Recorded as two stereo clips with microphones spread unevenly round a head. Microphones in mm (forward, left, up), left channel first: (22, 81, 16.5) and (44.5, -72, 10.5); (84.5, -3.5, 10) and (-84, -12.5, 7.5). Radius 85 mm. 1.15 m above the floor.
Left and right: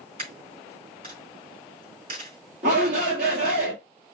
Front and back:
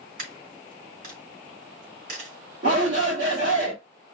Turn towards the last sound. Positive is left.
turn(degrees=-130)